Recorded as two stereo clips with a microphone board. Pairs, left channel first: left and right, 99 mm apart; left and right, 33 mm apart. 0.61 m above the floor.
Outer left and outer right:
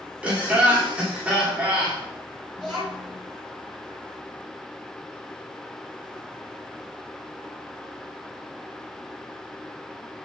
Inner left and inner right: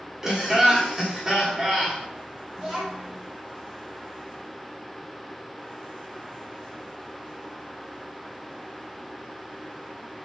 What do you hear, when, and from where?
0.2 s laughter: 15° right (ahead or behind), 1.2 m
2.5 s a child speaking: centre (ahead or behind), 1.9 m